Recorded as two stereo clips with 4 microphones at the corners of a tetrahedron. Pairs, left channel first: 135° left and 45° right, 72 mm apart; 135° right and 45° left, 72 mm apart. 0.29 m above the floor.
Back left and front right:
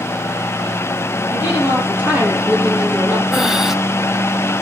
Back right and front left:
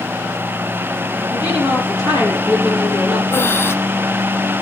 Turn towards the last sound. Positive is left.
turn(degrees=-125)